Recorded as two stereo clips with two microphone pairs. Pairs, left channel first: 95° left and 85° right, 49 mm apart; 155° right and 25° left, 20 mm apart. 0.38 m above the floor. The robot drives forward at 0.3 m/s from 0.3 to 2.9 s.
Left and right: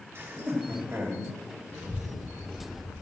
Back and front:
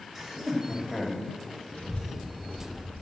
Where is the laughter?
60° right, 2 m; by 1.3 s 70° right, 2 m.